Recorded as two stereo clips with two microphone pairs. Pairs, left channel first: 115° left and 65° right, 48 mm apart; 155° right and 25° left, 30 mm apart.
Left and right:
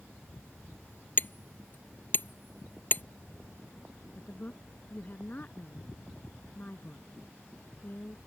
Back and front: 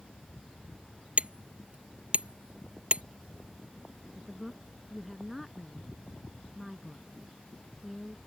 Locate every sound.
1.2 s hammering: 70° left
4.2 s a woman speaking: 115° left